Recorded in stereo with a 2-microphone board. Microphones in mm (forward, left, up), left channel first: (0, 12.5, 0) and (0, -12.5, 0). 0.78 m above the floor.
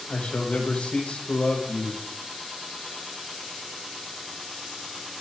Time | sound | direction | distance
0.1 | a man speaking | 65° left (ahead or behind) | 4 m